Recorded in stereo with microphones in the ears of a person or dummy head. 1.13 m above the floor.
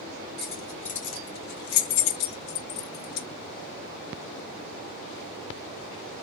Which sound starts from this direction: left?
Keys jangling, at 0.4 s.